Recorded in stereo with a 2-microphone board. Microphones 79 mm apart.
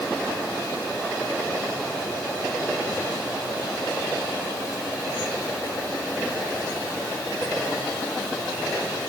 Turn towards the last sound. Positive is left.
No sound to turn to.